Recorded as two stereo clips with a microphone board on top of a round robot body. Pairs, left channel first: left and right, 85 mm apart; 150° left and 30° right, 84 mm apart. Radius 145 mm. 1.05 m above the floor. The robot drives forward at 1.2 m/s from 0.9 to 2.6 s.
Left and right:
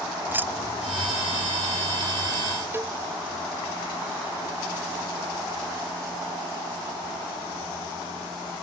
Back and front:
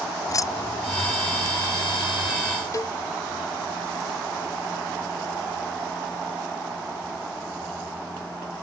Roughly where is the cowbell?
Behind right.